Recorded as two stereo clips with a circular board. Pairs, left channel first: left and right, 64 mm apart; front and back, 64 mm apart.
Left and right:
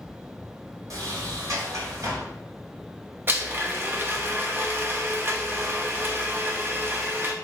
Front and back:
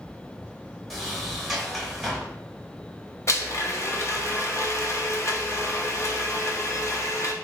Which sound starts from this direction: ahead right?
A blender, at 3.3 s.